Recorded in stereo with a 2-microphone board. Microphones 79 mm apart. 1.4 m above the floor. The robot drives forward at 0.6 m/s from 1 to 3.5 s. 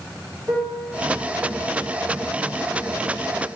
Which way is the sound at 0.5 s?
40° right (ahead or behind).